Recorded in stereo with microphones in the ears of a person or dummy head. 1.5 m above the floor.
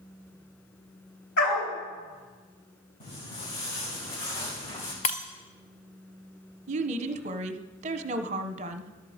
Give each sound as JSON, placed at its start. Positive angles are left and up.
{"t": 1.4, "sound": "a dog barking", "side_deg": 65, "distance_m": 3.5}
{"t": 3.0, "sound": "footsteps", "side_deg": 40, "distance_m": 6.5}
{"t": 5.0, "sound": "breaking glass", "side_deg": 30, "distance_m": 0.6}
{"t": 6.7, "sound": "a woman speaking", "side_deg": -40, "distance_m": 1.0}